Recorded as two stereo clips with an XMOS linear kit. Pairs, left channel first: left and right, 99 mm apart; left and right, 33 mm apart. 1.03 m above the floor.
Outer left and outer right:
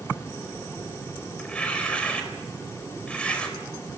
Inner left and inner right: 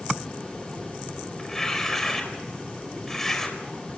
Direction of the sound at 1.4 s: 10° left (ahead or behind).